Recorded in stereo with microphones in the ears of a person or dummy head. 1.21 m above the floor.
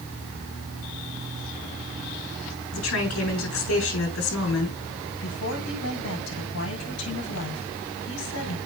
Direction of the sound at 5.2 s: 80° left.